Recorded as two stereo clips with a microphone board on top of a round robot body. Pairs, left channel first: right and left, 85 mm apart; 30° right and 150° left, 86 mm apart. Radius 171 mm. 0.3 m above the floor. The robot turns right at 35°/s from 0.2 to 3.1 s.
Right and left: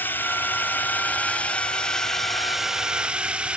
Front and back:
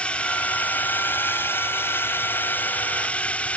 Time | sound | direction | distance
0.0 | a drone | 85° right | ?